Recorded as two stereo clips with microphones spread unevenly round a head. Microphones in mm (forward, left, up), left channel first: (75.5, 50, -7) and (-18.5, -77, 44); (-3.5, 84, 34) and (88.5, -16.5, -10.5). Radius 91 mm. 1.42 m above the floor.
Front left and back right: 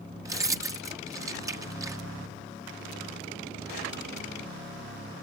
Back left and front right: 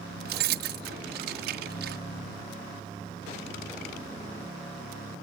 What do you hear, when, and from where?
0.2 s keys jangling: 60° right